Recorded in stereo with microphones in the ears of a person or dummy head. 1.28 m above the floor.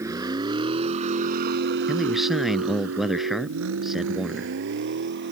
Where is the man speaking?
5° right (ahead or behind).